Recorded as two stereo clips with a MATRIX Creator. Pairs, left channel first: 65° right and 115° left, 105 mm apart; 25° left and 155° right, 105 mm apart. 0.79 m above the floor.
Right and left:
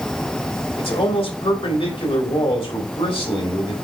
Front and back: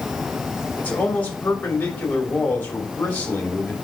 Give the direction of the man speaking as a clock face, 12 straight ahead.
2 o'clock.